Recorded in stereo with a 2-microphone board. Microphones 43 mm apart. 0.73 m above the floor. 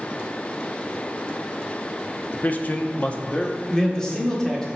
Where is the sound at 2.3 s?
40° left (ahead or behind), 0.6 m; by 3.6 s 25° left (ahead or behind), 0.9 m.